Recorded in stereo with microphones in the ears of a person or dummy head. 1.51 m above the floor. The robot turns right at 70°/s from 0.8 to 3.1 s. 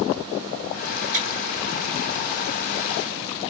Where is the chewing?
35° right (ahead or behind), 1.7 m; by 1.2 s 40° right (ahead or behind), 1.7 m.